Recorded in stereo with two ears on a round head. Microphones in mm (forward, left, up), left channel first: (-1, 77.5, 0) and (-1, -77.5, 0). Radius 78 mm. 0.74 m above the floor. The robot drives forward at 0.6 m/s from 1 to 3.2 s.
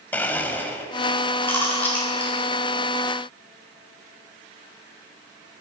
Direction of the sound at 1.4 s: 15° left (ahead or behind).